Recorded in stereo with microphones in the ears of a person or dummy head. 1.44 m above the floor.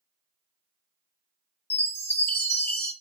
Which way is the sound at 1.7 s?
10° left (ahead or behind).